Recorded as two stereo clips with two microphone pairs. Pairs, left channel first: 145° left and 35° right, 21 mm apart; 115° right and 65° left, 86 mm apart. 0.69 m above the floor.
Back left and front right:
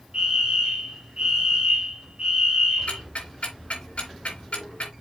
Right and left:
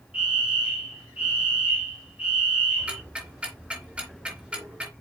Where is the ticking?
140° left, 3.5 m.